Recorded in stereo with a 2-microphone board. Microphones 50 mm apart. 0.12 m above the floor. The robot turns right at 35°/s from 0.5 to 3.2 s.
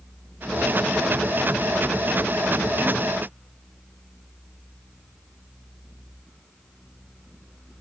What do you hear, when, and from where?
Only background noise.